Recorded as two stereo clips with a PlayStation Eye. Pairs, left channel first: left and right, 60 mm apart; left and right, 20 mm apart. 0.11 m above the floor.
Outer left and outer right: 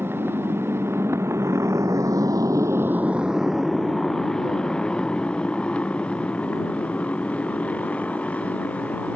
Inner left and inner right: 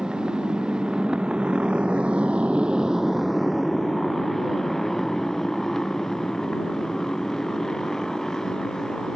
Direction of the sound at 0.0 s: 40° right (ahead or behind).